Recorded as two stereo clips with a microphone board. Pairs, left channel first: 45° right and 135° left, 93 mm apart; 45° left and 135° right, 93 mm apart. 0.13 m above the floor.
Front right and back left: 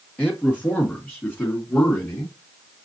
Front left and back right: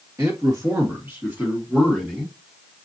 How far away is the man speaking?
About 1.8 m.